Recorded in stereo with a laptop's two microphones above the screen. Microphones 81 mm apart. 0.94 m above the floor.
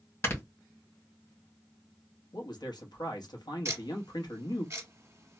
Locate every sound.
0.2 s snoring: 35° left (ahead or behind), 1.6 m
2.3 s a man speaking: 65° left (ahead or behind), 1.1 m
3.6 s ticking: 40° right (ahead or behind), 1.1 m